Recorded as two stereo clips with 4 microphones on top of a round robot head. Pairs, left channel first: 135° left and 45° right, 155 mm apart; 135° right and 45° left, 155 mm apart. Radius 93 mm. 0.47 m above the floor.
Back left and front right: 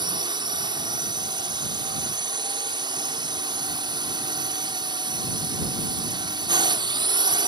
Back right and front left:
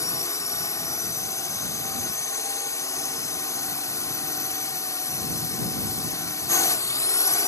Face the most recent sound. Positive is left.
turn(degrees=-80)